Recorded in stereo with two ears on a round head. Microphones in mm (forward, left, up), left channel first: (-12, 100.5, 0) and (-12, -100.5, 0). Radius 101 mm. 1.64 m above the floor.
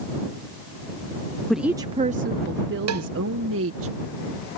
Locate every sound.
1.5 s a woman speaking: centre (ahead or behind); by 3.9 s 70° right (ahead or behind)
2.9 s a cowbell: 80° right